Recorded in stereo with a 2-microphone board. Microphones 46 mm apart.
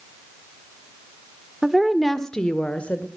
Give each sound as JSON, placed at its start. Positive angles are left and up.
{"t": 1.6, "sound": "a woman speaking", "side_deg": -10, "distance_m": 0.9}